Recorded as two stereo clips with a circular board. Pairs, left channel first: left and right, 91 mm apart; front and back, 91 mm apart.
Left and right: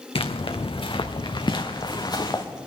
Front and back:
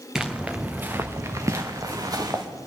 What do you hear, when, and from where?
0.1 s footsteps: 95° left, 1.1 m; by 2.4 s 135° left, 1.9 m